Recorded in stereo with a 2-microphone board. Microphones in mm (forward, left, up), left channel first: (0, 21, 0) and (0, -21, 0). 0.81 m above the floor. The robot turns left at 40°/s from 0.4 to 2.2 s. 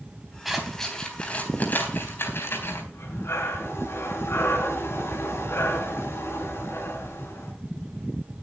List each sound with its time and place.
0.5 s scissors: 5° right (ahead or behind), 3.5 m; by 2.8 s 65° left (ahead or behind), 3.5 m
2.9 s breathing: 90° left, 4 m